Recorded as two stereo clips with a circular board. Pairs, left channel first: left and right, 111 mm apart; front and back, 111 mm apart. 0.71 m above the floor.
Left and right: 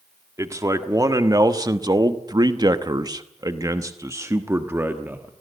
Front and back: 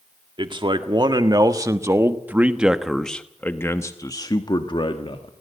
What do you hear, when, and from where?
0.4 s a man speaking: 145° right, 1.7 m; by 5.3 s 20° right, 1.5 m